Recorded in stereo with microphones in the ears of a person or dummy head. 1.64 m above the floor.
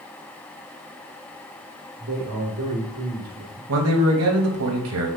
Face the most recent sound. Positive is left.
turn(degrees=-80)